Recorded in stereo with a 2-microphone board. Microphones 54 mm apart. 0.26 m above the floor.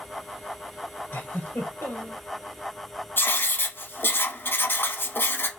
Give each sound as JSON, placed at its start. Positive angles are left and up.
{"t": 1.1, "sound": "a giggle", "side_deg": 50, "distance_m": 2.0}
{"t": 3.2, "sound": "writing", "side_deg": 45, "distance_m": 0.7}